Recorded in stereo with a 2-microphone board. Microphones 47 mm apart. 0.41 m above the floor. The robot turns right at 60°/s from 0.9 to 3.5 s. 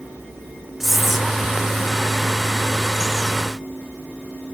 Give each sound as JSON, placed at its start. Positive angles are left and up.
{"t": 0.8, "sound": "whispering", "side_deg": -5}